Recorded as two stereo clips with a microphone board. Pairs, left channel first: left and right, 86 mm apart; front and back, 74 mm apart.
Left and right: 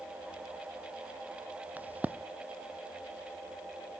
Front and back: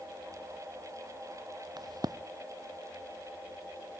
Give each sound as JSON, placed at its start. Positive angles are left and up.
{"t": 1.8, "sound": "a crack", "azimuth_deg": -160, "distance_m": 0.7}